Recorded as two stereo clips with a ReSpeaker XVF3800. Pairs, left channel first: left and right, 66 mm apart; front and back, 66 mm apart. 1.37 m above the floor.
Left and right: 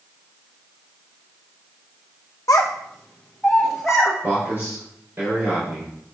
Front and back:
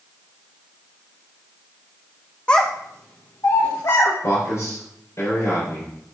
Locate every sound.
2.5 s a child speaking: 70° left, 0.6 m; by 4.1 s 5° right, 1.7 m
4.2 s a man speaking: 35° right, 4.5 m